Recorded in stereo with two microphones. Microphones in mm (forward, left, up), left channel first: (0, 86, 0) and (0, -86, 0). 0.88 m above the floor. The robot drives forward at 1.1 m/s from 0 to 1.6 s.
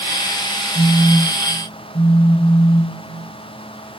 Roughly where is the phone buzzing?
Left.